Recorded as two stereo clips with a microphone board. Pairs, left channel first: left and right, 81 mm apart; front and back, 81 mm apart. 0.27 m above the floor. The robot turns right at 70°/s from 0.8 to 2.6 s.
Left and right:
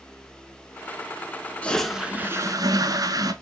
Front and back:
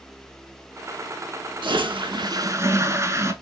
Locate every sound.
1.6 s a toilet flushing: 165° left, 0.5 m; by 3.3 s 125° right, 0.5 m